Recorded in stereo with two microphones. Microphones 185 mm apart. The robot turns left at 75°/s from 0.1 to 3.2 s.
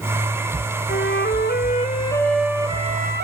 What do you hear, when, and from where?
0.9 s a flute: 110° left, 1.6 m; by 3.2 s 60° right, 1.6 m